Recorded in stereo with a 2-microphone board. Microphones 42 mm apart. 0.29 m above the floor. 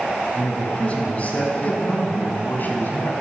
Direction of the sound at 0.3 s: 30° left (ahead or behind).